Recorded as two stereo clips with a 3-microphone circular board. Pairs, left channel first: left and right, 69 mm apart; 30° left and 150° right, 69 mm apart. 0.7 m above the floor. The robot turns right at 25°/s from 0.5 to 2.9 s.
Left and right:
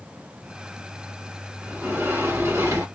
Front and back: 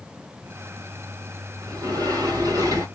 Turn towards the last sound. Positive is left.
turn(degrees=-125)